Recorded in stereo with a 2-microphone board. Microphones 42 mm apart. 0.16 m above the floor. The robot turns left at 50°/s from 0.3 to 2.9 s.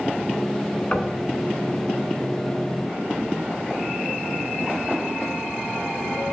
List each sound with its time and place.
0.9 s knocking: 35° left (ahead or behind), 0.9 m; by 1.1 s 40° left (ahead or behind), 0.9 m